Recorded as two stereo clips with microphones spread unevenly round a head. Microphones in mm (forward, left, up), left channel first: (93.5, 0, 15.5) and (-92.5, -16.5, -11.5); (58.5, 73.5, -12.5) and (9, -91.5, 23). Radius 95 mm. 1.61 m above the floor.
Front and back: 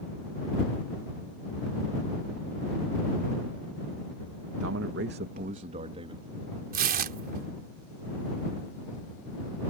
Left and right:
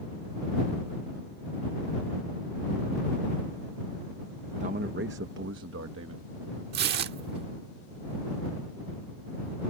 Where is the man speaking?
160° right; by 6.2 s 110° right.